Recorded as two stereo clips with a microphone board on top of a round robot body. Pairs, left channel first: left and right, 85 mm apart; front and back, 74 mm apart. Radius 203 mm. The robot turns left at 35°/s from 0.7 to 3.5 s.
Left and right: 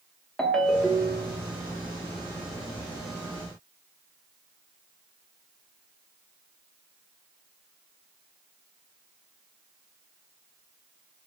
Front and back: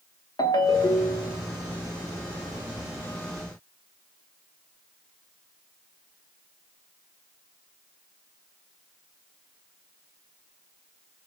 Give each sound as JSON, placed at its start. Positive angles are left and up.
{"t": 0.4, "sound": "a ringtone", "azimuth_deg": 10, "distance_m": 1.0}